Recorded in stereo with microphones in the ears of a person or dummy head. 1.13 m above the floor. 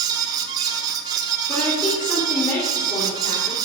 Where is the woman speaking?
25° left (ahead or behind), 3 m.